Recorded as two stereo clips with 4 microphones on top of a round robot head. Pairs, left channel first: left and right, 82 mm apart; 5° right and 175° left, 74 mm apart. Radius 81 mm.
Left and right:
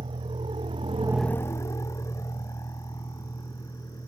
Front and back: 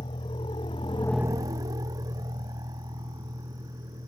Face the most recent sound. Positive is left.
turn(degrees=140)